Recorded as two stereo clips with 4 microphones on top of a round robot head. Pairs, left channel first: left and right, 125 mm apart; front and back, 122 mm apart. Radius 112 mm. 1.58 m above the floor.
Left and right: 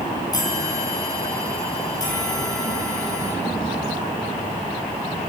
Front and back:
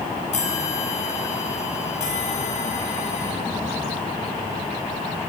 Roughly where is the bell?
Ahead left.